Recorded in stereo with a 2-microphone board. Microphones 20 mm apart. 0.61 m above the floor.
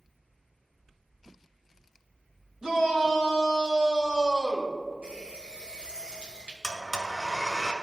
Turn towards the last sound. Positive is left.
turn(degrees=10)  # may be behind; listen again after turning